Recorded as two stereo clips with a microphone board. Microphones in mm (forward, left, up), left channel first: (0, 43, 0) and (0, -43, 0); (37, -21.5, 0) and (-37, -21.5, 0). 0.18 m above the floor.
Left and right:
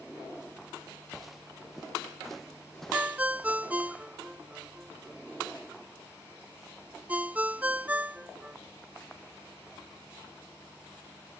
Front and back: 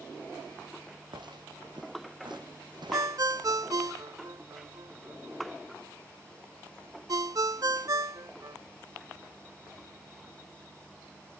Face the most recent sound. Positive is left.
turn(degrees=-160)